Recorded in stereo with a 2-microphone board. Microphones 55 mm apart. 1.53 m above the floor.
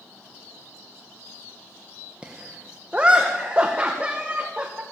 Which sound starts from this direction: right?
Laughter, at 2.2 s.